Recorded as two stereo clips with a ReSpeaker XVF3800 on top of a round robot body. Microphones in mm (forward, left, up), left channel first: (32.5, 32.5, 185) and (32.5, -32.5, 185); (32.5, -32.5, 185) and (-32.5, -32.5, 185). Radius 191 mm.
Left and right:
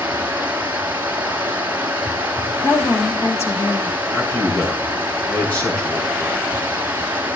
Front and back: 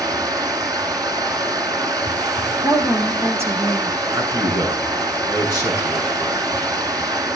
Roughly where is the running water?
Behind.